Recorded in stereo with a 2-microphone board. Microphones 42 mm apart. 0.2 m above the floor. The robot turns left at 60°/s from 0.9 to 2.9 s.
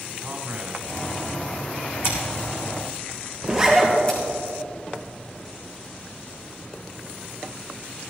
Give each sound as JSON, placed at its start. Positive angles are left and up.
{"t": 0.2, "sound": "a man speaking", "azimuth_deg": -125, "distance_m": 1.6}
{"t": 2.0, "sound": "scissors", "side_deg": 75, "distance_m": 3.0}
{"t": 3.4, "sound": "a zipper", "side_deg": -10, "distance_m": 2.5}